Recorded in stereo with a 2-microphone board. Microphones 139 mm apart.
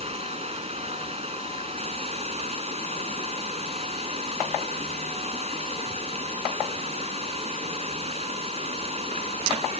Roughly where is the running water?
Right.